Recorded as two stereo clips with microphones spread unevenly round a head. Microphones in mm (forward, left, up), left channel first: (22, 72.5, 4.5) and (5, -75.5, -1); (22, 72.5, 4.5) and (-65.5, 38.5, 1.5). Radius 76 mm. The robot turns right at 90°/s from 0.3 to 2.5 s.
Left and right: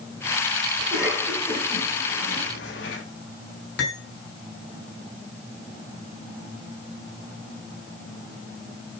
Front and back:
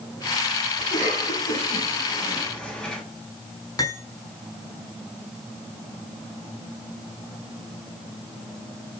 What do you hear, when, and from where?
0.8 s a cough: 50° right, 8 m; by 3.0 s 105° left, 8 m
3.8 s cutlery clinking: 75° left, 6 m